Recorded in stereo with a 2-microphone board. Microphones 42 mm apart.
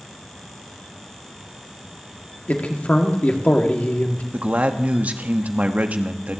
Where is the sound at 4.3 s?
35° right (ahead or behind), 1.0 m.